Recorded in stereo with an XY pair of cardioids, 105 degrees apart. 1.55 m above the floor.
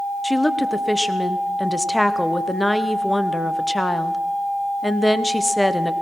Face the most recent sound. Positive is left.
turn(degrees=5)